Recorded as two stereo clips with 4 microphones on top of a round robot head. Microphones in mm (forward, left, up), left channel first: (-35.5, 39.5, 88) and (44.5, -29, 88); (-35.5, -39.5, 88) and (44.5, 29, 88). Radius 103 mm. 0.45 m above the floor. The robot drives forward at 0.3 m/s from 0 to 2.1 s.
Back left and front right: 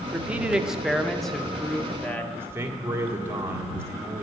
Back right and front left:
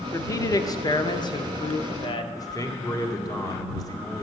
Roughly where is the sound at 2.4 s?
Right.